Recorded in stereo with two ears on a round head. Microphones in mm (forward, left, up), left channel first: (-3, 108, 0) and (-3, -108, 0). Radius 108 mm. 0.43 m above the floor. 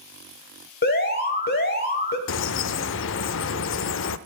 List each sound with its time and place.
0.8 s an alarm: 45° left (ahead or behind), 1.7 m
2.3 s a bird: 55° left (ahead or behind), 0.5 m